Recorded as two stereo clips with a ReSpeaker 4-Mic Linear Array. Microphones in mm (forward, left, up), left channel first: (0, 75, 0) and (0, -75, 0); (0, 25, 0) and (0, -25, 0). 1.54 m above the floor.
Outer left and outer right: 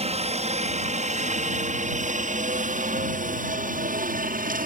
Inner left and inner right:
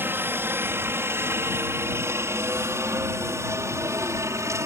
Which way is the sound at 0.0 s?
45° right (ahead or behind).